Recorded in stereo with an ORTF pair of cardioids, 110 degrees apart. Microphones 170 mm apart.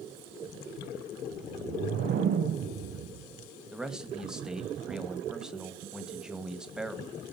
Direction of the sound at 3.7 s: 5° right.